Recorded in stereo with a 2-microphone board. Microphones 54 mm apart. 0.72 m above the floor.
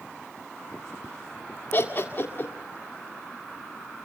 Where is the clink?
No clink in this recording.